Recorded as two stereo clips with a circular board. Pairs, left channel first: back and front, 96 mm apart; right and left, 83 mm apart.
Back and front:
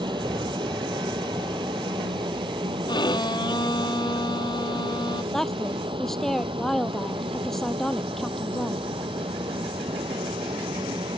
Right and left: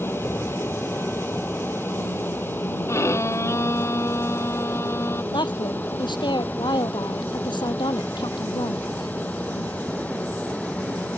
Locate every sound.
0.0 s an aircraft: 30° right; by 11.2 s 20° right
2.9 s a violin: 145° right
5.3 s a woman speaking: 95° right